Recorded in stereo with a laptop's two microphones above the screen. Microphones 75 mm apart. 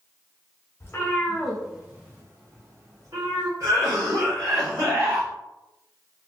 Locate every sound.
0.8 s a cat meowing: 35° left (ahead or behind), 1.1 m; by 3.5 s 60° right (ahead or behind), 1.9 m
3.6 s a cough: 55° right (ahead or behind), 1.7 m